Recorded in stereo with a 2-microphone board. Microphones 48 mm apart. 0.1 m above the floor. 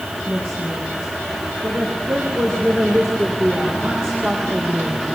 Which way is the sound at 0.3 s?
40° right (ahead or behind).